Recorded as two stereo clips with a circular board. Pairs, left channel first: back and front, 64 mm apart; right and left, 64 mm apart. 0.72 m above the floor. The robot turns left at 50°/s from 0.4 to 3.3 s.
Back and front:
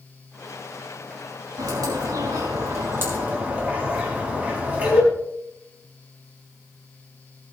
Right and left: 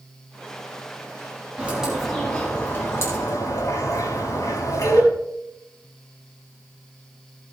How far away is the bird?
About 3.5 m.